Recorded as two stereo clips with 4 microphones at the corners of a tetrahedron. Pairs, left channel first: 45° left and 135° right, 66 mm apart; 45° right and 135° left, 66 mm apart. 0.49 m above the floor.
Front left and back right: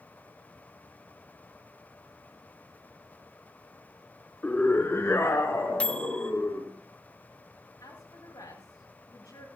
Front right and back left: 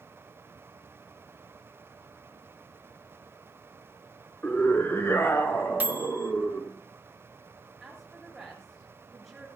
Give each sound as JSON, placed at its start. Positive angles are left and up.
{"t": 4.4, "sound": "a scream", "azimuth_deg": -5, "distance_m": 0.9}
{"t": 5.8, "sound": "a microwave", "azimuth_deg": 105, "distance_m": 0.6}
{"t": 7.8, "sound": "a woman speaking", "azimuth_deg": 45, "distance_m": 6.5}